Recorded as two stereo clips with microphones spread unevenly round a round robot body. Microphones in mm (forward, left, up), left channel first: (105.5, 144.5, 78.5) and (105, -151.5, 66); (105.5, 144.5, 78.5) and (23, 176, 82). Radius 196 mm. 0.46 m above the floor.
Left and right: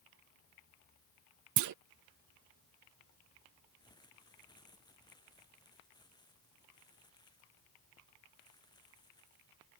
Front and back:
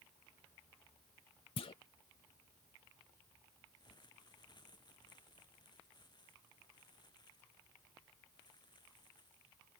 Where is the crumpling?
15° left.